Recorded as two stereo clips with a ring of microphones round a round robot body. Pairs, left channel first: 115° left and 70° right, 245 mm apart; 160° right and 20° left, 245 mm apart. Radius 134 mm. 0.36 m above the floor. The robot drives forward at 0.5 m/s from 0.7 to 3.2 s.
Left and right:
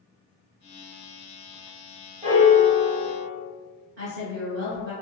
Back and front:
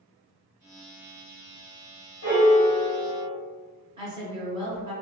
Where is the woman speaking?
45° right, 1.4 m.